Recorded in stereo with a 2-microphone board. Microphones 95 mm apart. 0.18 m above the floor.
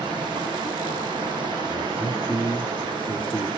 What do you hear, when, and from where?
0.0 s running water: 55° right (ahead or behind), 6.5 m
1.6 s a man speaking: 10° left (ahead or behind), 2.5 m